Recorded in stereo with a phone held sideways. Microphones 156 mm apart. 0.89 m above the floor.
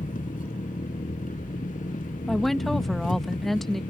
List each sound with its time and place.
0.0 s an engine running: 60° left (ahead or behind)
2.3 s a woman speaking: centre (ahead or behind)